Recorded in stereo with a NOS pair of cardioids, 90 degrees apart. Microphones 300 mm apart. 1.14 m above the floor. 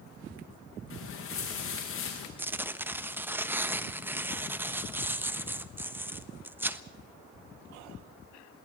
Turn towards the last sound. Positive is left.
turn(degrees=-5)